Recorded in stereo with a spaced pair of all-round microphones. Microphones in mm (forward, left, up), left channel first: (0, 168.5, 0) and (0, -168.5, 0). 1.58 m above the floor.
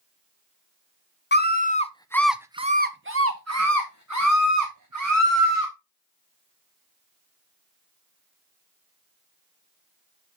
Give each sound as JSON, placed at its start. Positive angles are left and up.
{"t": 1.3, "sound": "a scream", "side_deg": 30, "distance_m": 0.8}